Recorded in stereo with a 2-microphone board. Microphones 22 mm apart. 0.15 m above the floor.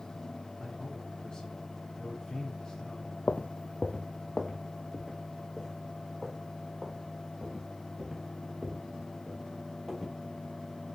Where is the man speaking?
35° left (ahead or behind), 1.7 m.